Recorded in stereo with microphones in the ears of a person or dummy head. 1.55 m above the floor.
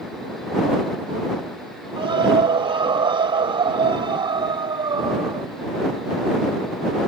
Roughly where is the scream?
Right.